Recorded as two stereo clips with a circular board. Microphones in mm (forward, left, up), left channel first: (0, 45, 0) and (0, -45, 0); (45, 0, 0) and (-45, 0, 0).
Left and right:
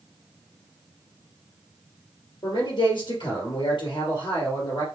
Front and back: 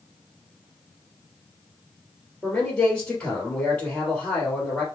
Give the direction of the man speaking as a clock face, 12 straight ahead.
10 o'clock.